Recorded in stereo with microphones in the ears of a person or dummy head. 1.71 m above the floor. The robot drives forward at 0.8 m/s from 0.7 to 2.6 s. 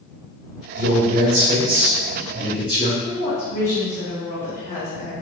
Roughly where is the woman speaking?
Left.